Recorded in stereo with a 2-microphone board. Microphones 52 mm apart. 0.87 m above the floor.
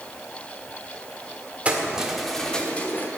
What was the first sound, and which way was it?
Keys jangling, 25° right (ahead or behind).